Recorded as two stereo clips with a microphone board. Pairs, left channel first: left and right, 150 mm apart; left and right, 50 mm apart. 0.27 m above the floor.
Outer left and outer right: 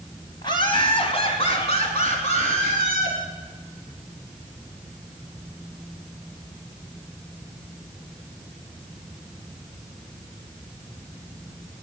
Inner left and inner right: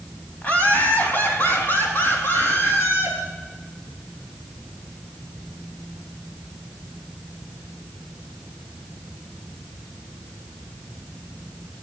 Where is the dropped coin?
No dropped coin in this recording.